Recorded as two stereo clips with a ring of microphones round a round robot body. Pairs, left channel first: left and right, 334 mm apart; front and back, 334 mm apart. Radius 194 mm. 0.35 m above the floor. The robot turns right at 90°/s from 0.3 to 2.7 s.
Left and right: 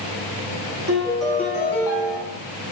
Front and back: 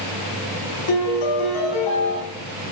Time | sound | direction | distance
0.9 | a piano | 30° right | 5.5 m